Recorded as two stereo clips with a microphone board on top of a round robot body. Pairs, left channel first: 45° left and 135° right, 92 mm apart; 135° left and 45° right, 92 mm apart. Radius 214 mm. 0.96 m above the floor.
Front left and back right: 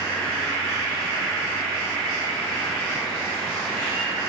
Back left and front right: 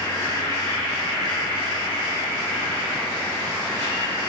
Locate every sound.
0.0 s an insect: 115° left, 1.5 m